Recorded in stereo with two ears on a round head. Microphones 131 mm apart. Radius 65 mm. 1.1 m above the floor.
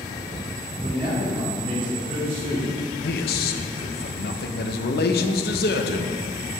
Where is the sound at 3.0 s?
70° left (ahead or behind), 0.8 m.